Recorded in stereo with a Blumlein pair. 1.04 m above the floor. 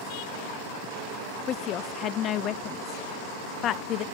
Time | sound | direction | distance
1.5 | a woman speaking | 30° left | 0.7 m